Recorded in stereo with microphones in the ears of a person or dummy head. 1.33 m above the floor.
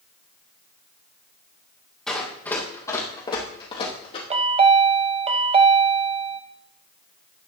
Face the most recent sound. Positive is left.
turn(degrees=-30)  # may be behind; listen again after turning